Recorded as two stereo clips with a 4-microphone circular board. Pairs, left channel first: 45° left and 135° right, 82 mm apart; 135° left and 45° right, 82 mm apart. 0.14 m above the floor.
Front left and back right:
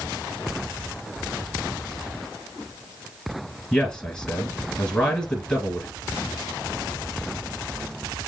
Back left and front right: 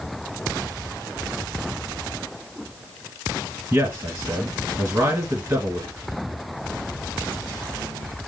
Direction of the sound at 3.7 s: 20° right.